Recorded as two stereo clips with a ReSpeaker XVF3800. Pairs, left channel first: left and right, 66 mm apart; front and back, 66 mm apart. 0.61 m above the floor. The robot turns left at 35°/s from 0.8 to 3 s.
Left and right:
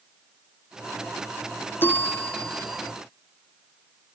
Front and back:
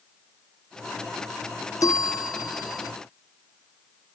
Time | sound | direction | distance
1.8 | a bell | 35° left | ?